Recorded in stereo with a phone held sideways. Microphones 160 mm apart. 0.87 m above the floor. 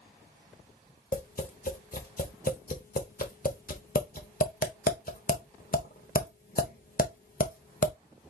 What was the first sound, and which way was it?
Tapping, 55° left (ahead or behind).